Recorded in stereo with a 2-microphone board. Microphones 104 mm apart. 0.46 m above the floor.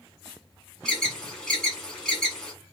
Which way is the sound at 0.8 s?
5° left (ahead or behind).